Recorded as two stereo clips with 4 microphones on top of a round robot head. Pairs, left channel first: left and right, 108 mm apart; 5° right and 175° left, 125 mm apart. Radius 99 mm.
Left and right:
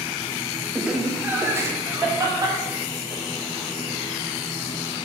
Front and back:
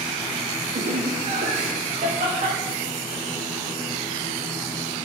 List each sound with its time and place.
0.8 s laughter: straight behind, 0.9 m; by 3.2 s 145° right, 2.5 m